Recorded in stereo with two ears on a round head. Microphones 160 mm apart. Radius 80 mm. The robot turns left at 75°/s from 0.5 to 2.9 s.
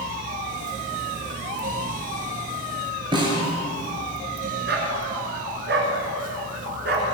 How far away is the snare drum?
About 6 m.